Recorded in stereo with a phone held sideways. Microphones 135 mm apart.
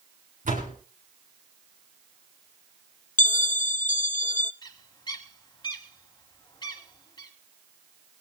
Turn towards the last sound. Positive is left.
turn(degrees=35)  # may be behind; listen again after turning